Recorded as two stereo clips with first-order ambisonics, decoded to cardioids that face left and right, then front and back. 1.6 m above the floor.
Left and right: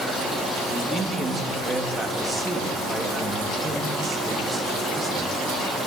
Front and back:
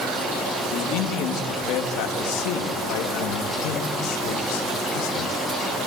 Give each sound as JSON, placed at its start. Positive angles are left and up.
{"t": 0.7, "sound": "a man speaking", "azimuth_deg": -15, "distance_m": 2.5}